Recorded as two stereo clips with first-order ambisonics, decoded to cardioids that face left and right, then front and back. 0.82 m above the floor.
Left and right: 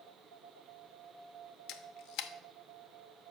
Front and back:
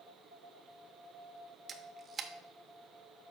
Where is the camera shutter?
115° left, 0.7 m.